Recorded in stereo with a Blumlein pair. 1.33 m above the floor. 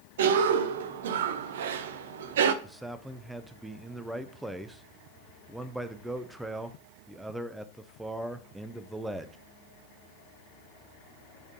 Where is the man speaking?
5° right, 0.5 m.